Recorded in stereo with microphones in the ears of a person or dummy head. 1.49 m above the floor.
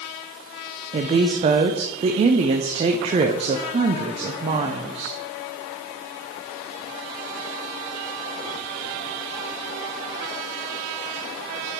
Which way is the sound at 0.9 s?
30° right (ahead or behind).